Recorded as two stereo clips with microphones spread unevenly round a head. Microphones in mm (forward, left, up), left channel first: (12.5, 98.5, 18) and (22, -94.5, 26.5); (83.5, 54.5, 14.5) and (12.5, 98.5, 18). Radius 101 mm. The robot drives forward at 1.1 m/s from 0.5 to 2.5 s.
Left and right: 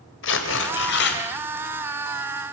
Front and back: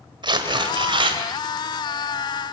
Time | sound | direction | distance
0.2 | tearing paper | 125° left | 3.5 m